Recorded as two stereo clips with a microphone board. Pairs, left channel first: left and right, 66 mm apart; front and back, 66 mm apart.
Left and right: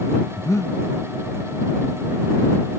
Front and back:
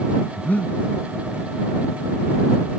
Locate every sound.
0.4 s breathing: 60° left